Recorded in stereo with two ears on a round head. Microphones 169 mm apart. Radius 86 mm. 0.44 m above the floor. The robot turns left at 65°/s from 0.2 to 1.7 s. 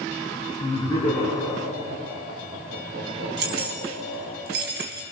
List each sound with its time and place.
0.6 s laughter: 40° left (ahead or behind), 5.5 m; by 4.4 s 30° right (ahead or behind), 5.5 m
3.4 s keys jangling: 60° right (ahead or behind), 3 m